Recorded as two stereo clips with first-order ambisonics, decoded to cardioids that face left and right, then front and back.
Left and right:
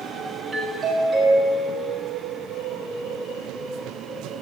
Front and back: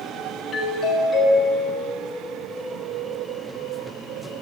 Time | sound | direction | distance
0.5 | a doorbell | 35° right | 1.0 m